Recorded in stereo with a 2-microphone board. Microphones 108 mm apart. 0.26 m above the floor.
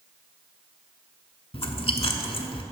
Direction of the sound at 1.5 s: 60° left (ahead or behind).